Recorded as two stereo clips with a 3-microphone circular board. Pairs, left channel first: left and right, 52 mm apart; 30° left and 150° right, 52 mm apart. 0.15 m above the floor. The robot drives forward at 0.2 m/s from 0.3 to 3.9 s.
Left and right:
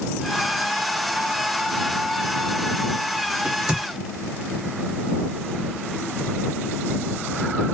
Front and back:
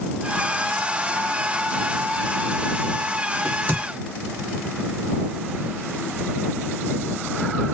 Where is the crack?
145° right, 1.4 m; by 3.8 s 150° right, 1.5 m.